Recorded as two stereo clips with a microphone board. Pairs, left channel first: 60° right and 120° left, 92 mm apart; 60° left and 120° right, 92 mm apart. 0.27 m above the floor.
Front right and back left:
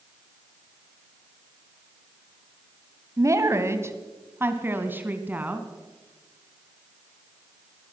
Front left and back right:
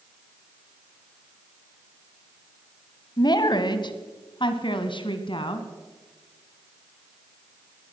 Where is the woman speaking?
75° left, 1.9 m; by 5.7 s 50° left, 3 m.